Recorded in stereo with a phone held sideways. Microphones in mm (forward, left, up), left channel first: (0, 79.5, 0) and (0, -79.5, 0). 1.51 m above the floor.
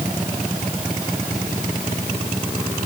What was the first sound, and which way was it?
Only background noise.